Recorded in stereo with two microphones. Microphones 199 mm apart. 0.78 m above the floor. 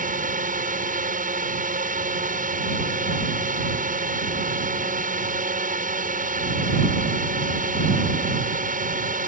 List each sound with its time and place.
0.0 s a drone: 45° right (ahead or behind)